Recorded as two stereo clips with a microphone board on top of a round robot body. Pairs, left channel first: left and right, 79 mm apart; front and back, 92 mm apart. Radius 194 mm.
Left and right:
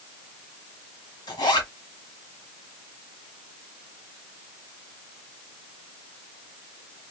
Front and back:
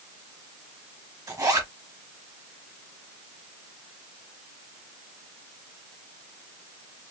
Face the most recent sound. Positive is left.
turn(degrees=125)